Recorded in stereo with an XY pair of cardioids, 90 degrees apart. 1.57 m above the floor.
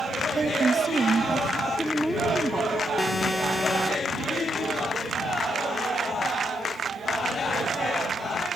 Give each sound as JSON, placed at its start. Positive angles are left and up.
{"t": 0.3, "sound": "a woman speaking", "azimuth_deg": -35}
{"t": 1.7, "sound": "a woman speaking", "azimuth_deg": -5}
{"t": 3.0, "sound": "an alarm", "azimuth_deg": 15}